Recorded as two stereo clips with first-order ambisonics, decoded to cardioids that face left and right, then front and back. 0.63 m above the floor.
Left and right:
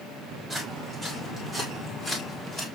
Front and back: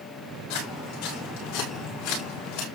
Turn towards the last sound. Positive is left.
turn(degrees=20)